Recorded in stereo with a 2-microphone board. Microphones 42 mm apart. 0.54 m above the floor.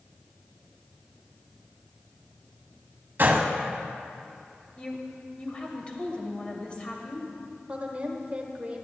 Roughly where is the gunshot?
Right.